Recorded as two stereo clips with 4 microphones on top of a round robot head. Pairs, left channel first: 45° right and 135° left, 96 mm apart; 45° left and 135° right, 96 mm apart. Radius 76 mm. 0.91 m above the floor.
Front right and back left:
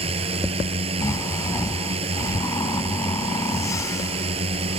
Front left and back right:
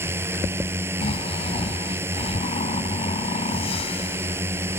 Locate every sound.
0.0 s a drone: 155° left
1.0 s snoring: 15° left